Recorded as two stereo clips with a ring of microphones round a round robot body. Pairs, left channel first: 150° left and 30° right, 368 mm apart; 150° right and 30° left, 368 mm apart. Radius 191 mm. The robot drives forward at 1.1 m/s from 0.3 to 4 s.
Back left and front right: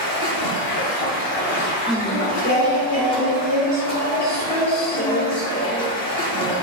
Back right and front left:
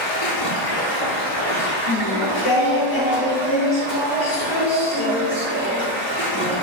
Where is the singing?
115° right, 0.7 m; by 6.5 s 170° right, 2.5 m.